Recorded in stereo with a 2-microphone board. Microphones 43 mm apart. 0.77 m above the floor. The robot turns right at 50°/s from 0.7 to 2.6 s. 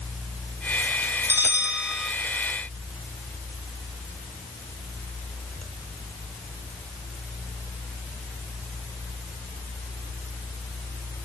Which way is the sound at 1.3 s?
50° right.